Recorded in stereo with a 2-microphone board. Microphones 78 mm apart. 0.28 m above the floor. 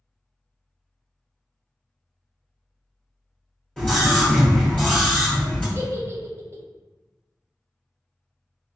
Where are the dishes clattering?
No dishes clattering in this recording.